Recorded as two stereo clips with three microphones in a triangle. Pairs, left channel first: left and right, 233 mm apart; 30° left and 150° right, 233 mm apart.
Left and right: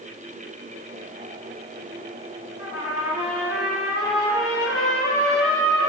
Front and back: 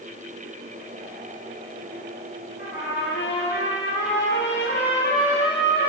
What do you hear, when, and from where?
2.6 s a trumpet: 70° left, 5 m